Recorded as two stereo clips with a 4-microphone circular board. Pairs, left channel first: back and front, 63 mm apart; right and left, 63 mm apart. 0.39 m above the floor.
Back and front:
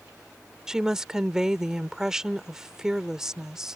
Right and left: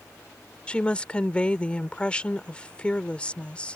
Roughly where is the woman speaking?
Ahead right.